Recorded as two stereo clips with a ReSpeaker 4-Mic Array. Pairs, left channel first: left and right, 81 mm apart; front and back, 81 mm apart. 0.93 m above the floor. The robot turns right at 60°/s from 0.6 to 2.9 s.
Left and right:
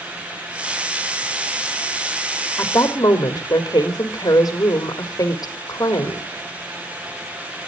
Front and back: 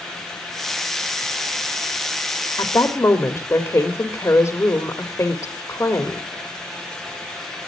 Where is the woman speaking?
35° left, 1.7 m; by 6.3 s 55° left, 1.7 m.